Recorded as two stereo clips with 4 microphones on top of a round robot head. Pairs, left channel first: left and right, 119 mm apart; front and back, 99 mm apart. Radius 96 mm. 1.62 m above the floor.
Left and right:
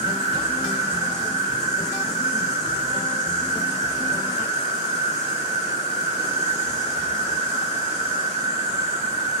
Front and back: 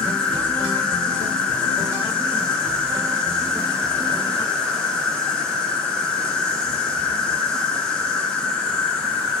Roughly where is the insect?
Left.